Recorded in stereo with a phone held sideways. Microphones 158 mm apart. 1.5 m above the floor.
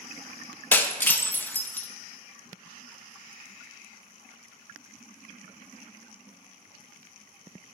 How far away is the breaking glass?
About 0.9 m.